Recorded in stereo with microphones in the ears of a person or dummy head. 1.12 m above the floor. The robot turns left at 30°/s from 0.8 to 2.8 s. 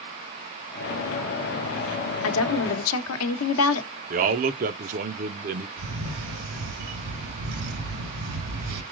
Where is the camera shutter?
65° right (ahead or behind), 1.6 m.